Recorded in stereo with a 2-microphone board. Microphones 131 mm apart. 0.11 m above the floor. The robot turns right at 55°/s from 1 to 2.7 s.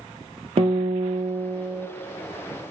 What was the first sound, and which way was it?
A guitar, 65° right.